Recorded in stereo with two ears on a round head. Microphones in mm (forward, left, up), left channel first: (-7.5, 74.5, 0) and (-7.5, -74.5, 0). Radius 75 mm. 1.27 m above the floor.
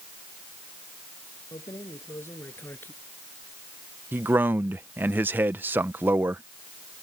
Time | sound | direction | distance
1.5 | keys jangling | 20° left (ahead or behind) | ?
4.1 | a man speaking | 10° right (ahead or behind) | ?